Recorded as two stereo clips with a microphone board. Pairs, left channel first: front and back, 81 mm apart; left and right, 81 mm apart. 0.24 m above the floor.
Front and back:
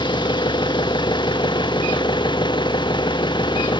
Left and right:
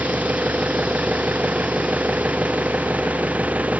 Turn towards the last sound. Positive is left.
turn(degrees=-20)